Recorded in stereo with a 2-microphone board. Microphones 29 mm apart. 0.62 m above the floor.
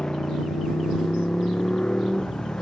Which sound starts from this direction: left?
A motorcycle, at 0.0 s.